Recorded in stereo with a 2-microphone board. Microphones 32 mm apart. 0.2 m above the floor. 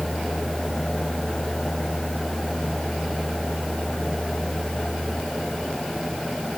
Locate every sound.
Only background noise.